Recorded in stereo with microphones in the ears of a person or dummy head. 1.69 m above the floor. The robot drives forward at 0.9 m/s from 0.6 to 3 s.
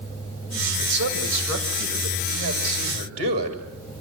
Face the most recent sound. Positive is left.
turn(degrees=-35)  # may be behind; listen again after turning